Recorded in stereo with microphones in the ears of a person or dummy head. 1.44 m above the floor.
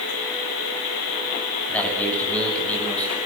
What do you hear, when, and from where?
1.7 s a man speaking: 5° left (ahead or behind), 9 m